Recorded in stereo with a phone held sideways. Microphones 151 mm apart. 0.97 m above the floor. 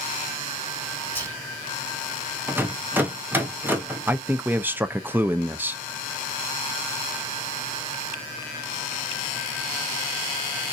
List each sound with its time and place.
1.1 s whispering: 15° left (ahead or behind), 1.4 m
2.5 s a rattle: 15° right (ahead or behind), 0.7 m
4.1 s a man speaking: 10° right (ahead or behind), 0.5 m